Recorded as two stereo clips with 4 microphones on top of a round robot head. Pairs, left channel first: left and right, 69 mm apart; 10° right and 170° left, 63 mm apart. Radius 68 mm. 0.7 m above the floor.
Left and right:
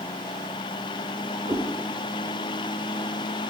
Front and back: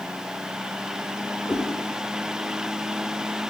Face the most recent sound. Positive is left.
turn(degrees=-70)